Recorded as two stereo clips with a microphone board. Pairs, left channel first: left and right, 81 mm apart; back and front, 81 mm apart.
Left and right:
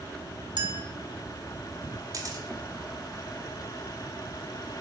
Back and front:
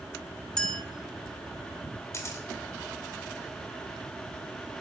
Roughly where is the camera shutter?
Behind right.